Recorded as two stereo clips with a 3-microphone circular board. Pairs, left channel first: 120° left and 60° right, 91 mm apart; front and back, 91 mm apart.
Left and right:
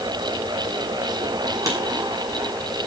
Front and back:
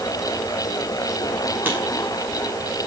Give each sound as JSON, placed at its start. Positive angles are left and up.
{"t": 1.6, "sound": "writing", "azimuth_deg": -110, "distance_m": 6.0}